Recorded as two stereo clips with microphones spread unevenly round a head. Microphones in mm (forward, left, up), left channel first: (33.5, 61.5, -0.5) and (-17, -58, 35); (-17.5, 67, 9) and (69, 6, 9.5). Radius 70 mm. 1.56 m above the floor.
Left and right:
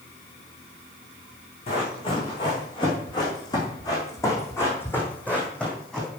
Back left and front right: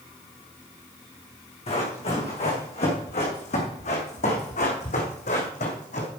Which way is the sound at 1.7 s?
120° left.